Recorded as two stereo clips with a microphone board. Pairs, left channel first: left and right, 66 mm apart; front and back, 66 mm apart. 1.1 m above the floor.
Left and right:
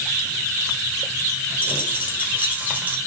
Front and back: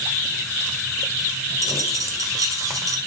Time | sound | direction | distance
1.6 | a dropped coin | 155° right | 1.9 m